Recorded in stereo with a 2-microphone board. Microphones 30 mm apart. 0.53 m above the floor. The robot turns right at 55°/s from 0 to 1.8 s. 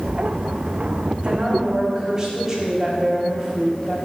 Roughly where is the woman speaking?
Ahead right.